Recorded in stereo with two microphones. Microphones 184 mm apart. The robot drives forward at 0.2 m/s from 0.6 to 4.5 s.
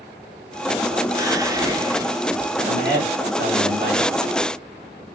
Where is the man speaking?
75° right (ahead or behind), 2.5 m.